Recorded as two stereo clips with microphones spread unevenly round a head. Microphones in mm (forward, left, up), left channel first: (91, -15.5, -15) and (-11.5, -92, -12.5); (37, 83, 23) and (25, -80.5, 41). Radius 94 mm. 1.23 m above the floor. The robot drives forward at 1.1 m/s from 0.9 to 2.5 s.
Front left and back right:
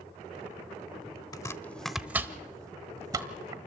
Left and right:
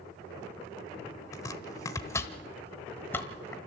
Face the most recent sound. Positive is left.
turn(degrees=170)